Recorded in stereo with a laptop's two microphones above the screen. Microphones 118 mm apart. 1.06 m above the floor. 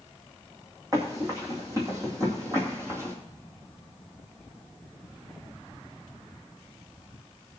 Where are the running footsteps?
30° right (ahead or behind), 3 m; by 3.1 s 25° right (ahead or behind), 1.8 m.